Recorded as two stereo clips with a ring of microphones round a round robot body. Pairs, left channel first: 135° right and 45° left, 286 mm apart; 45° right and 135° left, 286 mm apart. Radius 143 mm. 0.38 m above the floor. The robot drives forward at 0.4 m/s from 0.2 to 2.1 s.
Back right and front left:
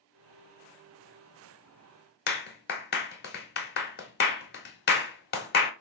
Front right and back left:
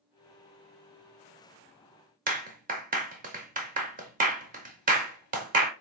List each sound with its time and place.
2.3 s a clap: 175° right, 0.7 m